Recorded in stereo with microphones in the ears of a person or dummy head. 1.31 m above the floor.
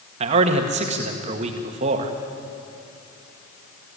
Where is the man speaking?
35° right (ahead or behind), 1.7 m.